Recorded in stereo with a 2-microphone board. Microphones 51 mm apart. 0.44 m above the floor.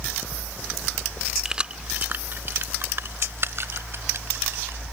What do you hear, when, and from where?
1.4 s keys jangling: 15° right (ahead or behind); by 4.8 s 55° right (ahead or behind)